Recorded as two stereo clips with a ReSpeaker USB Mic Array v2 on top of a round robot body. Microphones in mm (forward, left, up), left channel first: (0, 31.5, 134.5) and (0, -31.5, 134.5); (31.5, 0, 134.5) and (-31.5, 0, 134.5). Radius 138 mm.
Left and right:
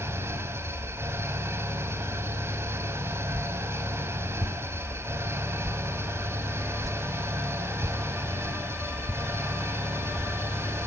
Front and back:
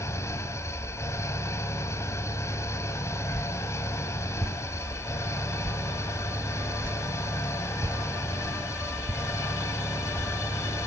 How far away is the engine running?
About 4 m.